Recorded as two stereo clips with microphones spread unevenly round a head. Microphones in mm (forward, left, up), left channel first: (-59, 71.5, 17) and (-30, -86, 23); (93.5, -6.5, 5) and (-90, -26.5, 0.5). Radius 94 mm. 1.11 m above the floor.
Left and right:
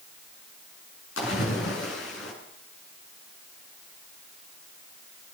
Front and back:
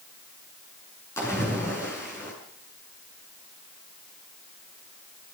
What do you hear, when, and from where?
1.2 s a splash: 85° left, 7 m